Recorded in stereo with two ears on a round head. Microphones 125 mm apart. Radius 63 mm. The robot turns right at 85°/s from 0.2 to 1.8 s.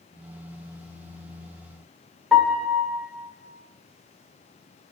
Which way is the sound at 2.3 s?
5° left (ahead or behind).